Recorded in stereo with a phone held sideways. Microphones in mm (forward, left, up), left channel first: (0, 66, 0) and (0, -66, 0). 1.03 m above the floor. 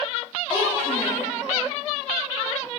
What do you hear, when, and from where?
0.5 s a child speaking: 35° left (ahead or behind), 6.5 m